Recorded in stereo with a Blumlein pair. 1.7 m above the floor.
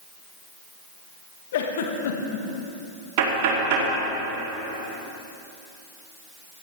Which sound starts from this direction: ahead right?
Knocking, at 3.2 s.